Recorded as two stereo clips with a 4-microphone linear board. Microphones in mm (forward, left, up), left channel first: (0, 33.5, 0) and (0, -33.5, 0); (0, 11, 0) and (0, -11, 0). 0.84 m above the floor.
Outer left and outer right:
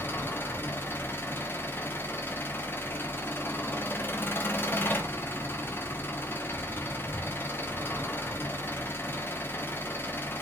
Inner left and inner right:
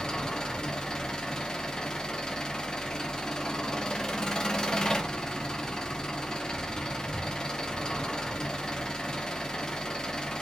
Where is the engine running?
35° left (ahead or behind), 0.8 m.